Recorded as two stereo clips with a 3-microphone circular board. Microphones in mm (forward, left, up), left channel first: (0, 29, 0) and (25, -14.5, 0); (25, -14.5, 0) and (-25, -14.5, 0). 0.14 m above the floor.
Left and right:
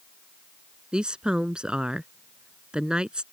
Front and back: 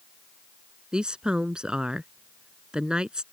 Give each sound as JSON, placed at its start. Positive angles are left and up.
{"t": 0.9, "sound": "a woman speaking", "azimuth_deg": -120}